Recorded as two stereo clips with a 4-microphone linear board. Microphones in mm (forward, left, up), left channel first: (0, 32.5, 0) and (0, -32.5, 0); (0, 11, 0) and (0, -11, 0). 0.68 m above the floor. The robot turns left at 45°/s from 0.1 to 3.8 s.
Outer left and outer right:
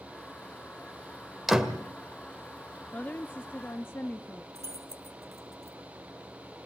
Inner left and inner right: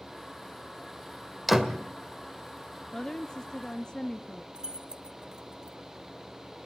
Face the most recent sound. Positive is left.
turn(degrees=-40)  # may be behind; listen again after turning